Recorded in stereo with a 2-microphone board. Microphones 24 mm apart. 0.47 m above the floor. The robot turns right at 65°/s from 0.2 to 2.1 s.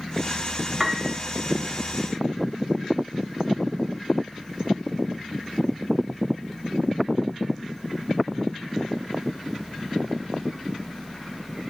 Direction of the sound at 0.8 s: 5° right (ahead or behind).